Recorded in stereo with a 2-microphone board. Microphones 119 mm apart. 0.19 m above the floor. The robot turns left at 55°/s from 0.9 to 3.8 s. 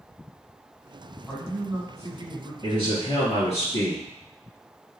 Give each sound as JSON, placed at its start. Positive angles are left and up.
{"t": 1.3, "sound": "a man speaking", "azimuth_deg": -5, "distance_m": 1.7}
{"t": 2.6, "sound": "a man speaking", "azimuth_deg": 125, "distance_m": 2.5}